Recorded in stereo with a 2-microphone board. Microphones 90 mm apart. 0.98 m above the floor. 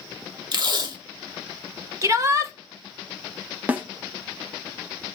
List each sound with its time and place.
0.5 s tape being pulled: 50° right (ahead or behind), 1.0 m
2.0 s a shout: 35° right (ahead or behind), 1.0 m
3.7 s a snare drum: 20° right (ahead or behind), 0.9 m